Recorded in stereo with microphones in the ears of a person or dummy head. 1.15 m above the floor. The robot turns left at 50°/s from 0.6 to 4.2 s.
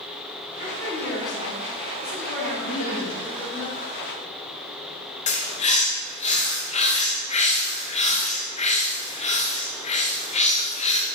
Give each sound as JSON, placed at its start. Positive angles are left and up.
{"t": 0.6, "sound": "a woman speaking", "azimuth_deg": 30, "distance_m": 3.0}
{"t": 2.6, "sound": "laughter", "azimuth_deg": 95, "distance_m": 2.0}
{"t": 5.3, "sound": "a bird", "side_deg": 40, "distance_m": 0.7}